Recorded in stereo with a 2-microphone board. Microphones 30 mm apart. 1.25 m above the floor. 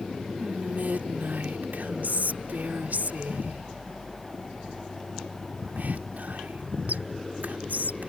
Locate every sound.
0.4 s whispering: 75° right (ahead or behind)